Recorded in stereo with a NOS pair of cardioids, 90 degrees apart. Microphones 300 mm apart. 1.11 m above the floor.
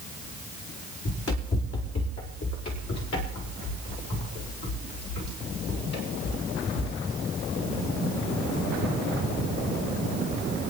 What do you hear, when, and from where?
1.1 s running footsteps: 55° left, 4 m; by 6.9 s 65° left, 10 m